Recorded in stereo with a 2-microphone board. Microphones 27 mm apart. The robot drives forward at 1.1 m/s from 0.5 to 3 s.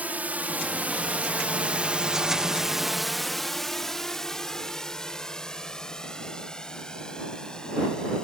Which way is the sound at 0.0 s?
75° right (ahead or behind).